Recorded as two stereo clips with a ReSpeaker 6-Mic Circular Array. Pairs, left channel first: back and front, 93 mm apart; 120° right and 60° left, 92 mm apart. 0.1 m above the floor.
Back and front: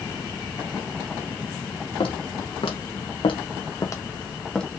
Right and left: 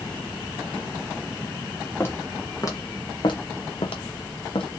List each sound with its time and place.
2.0 s footsteps: 175° left, 1.6 m; by 4.7 s 95° right, 1.0 m